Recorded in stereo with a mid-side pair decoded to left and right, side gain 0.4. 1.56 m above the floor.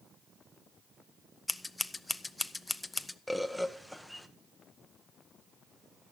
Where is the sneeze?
No sneeze in this recording.